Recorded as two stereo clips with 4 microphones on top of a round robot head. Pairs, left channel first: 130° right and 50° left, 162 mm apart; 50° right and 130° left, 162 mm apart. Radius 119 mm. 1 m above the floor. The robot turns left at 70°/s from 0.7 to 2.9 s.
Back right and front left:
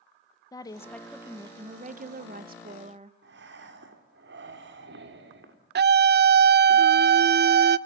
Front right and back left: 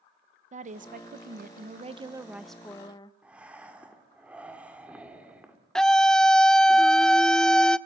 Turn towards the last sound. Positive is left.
turn(degrees=35)